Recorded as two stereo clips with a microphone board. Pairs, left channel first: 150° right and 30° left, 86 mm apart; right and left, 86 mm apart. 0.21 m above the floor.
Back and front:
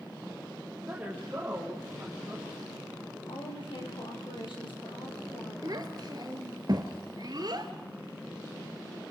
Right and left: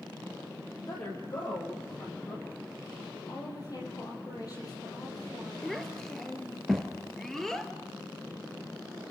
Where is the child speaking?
5° right, 2 m.